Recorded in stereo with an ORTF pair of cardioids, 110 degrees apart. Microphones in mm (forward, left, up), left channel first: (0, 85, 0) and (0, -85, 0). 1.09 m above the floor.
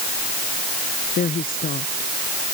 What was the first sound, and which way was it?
A woman speaking, 55° left.